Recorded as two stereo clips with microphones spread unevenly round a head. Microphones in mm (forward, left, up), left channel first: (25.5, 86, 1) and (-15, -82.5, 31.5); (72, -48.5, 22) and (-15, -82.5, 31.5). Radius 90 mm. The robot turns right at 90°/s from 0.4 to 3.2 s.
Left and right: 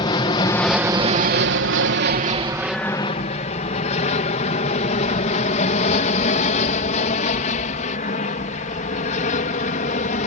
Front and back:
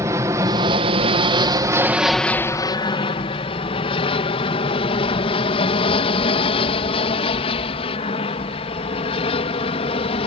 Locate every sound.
0.0 s an aircraft: 135° left; by 10.3 s 30° left